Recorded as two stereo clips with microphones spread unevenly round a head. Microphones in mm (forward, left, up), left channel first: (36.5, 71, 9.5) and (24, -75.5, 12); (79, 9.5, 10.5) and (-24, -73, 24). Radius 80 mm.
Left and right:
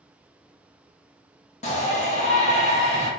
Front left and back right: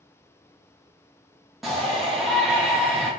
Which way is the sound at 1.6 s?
125° left.